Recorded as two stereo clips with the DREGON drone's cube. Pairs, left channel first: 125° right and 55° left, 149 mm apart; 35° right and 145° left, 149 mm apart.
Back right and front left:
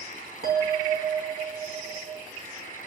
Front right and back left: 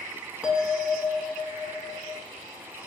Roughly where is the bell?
Ahead left.